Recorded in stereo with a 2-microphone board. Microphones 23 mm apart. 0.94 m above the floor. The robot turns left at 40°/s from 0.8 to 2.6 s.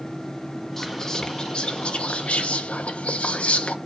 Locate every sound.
0.8 s whispering: 165° left, 1.1 m; by 3.8 s 90° left, 1.1 m